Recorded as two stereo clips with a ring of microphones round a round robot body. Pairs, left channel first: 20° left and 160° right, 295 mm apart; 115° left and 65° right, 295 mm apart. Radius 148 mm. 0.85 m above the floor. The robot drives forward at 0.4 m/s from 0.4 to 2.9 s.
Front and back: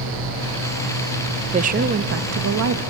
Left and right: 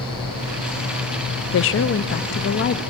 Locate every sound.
1.5 s a woman speaking: 140° left, 0.6 m; by 2.8 s 165° left, 0.9 m